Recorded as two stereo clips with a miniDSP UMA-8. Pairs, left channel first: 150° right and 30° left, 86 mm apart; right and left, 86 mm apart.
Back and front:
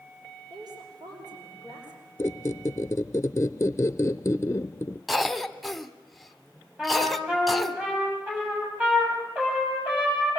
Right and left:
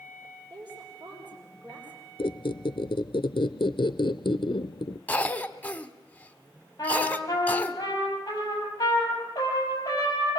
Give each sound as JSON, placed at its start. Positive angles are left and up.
{"t": 0.5, "sound": "a woman speaking", "azimuth_deg": 65, "distance_m": 5.5}
{"t": 2.2, "sound": "a squeak", "azimuth_deg": -95, "distance_m": 0.6}
{"t": 5.1, "sound": "a cough", "azimuth_deg": -60, "distance_m": 1.1}
{"t": 6.8, "sound": "a trumpet", "azimuth_deg": -40, "distance_m": 6.5}